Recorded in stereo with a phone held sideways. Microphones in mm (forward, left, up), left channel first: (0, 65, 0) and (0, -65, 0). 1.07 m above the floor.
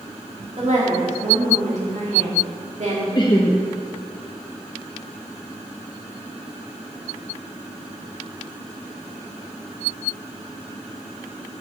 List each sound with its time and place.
0.6 s a woman speaking: 60° right (ahead or behind), 2 m
3.1 s laughter: 35° left (ahead or behind), 0.8 m